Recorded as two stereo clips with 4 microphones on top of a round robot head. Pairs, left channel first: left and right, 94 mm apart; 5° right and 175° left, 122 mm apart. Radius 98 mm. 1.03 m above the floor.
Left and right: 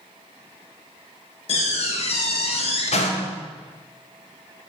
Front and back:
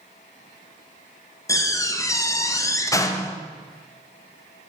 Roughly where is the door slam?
Ahead left.